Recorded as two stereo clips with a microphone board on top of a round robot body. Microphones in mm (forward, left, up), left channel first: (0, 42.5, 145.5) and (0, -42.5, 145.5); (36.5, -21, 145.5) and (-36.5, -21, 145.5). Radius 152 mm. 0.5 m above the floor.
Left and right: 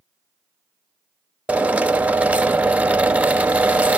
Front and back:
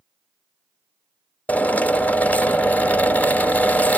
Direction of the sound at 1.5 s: 40° right.